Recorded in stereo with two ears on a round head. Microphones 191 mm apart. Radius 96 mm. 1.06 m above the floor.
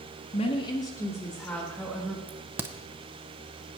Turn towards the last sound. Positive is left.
turn(degrees=-10)  # may be behind; listen again after turning